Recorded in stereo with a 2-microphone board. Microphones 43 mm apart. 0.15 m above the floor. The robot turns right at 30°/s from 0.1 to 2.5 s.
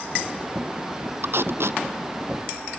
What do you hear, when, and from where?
1.2 s tape being pulled: 55° right (ahead or behind); by 1.8 s 70° right (ahead or behind)